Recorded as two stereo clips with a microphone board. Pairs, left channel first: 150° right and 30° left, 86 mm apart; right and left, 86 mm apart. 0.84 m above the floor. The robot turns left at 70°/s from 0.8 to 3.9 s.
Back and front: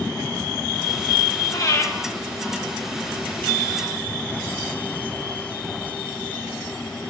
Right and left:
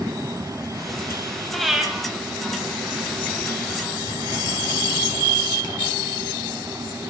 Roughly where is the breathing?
Behind.